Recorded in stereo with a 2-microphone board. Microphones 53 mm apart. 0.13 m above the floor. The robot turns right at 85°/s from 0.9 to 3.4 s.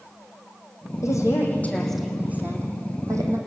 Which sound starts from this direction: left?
A woman speaking, at 1.0 s.